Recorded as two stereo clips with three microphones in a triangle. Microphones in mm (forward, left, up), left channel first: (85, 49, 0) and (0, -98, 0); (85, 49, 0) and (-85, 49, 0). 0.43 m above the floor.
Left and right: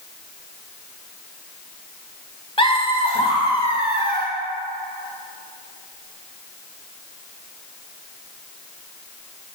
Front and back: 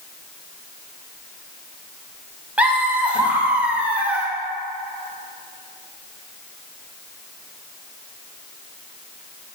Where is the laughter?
100° left, 1.5 m.